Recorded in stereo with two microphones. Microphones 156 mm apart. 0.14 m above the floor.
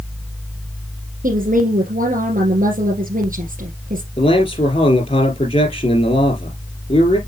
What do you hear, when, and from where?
1.2 s a woman speaking: 60° right (ahead or behind), 2.5 m
4.2 s a man speaking: 40° left (ahead or behind), 4 m